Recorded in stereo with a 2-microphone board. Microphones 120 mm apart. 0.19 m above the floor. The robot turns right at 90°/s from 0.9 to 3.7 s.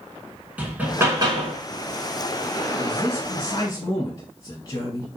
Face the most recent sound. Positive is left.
turn(degrees=130)